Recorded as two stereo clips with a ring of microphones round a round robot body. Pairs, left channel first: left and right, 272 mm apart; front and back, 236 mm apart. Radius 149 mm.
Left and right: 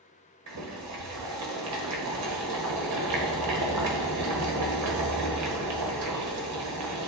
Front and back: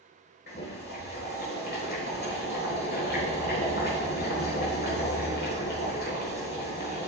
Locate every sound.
0.5 s boiling: 55° right, 1.3 m